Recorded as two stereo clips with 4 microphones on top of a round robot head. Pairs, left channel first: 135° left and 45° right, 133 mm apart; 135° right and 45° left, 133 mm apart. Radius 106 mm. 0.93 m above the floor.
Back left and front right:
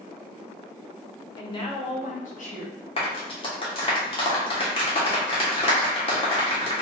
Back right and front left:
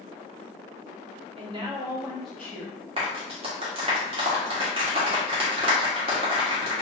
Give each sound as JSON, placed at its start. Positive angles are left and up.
{"t": 1.4, "sound": "a woman speaking", "azimuth_deg": 80, "distance_m": 1.3}
{"t": 3.0, "sound": "a clap", "azimuth_deg": 90, "distance_m": 1.5}